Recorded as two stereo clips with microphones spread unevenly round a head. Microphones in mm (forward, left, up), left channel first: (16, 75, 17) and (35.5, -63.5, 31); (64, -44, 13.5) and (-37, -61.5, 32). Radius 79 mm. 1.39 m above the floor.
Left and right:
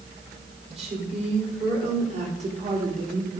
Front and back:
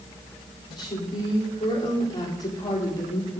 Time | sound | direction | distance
0.7 | a woman speaking | 40° right | 4 m